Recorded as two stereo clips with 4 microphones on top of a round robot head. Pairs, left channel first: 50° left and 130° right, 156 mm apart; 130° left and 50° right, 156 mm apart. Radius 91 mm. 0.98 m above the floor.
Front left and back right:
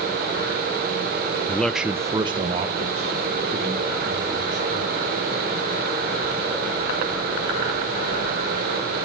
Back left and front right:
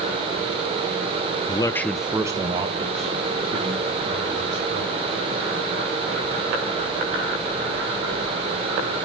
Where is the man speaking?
115° left, 0.8 m; by 5.2 s 90° right, 3.5 m.